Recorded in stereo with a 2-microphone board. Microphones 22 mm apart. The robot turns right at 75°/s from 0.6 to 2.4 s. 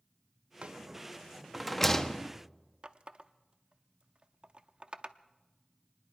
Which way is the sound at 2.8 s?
50° right (ahead or behind).